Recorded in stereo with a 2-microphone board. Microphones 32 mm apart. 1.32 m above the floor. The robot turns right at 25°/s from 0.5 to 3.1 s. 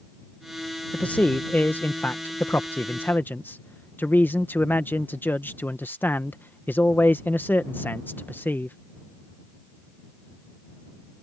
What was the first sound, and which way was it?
A man speaking, 40° left.